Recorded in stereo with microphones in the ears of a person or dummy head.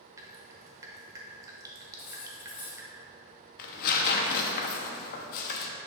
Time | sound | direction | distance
0.2 | dripping | 20° right (ahead or behind) | 0.7 m
2.0 | cutlery clinking | 30° left (ahead or behind) | 0.8 m
3.6 | tearing paper | 55° left (ahead or behind) | 0.7 m